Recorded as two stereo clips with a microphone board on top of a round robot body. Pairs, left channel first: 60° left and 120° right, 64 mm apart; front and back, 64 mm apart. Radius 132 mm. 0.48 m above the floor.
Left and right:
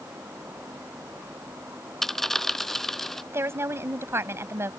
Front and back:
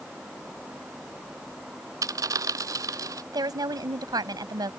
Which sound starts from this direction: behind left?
A dropped coin, at 2.0 s.